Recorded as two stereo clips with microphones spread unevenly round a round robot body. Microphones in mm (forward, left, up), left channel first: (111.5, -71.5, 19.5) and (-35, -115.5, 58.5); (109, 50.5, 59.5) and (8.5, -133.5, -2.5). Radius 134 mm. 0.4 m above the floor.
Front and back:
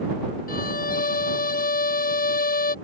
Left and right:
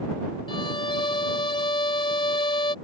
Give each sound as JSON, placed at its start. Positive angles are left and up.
{"t": 0.5, "sound": "a violin", "azimuth_deg": -5}